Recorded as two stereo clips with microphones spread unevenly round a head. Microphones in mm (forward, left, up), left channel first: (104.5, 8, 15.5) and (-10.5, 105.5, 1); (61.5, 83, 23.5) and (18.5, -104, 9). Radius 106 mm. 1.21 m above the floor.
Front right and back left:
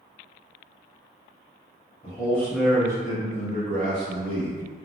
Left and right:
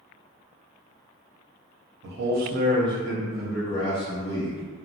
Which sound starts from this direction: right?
A man speaking, at 2.0 s.